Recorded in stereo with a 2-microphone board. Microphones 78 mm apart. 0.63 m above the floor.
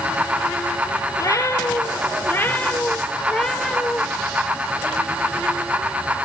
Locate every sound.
1.2 s a cat meowing: 45° left (ahead or behind), 2.5 m; by 4.0 s centre (ahead or behind), 2 m